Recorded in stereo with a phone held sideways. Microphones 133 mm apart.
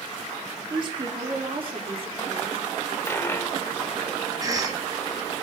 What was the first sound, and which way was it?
A woman speaking, 35° right (ahead or behind).